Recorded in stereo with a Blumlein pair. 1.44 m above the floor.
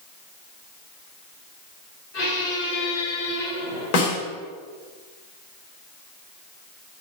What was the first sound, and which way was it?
A squeak, 40° left.